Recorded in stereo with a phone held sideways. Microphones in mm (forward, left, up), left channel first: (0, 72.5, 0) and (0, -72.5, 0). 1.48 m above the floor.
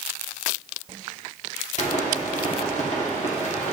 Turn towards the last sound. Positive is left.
turn(degrees=55)  # may be behind; listen again after turning